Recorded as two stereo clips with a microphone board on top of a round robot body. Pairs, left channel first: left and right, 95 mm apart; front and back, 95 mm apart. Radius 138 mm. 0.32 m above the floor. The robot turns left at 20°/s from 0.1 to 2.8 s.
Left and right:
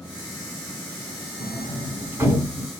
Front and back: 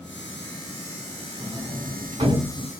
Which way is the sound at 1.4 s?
140° right.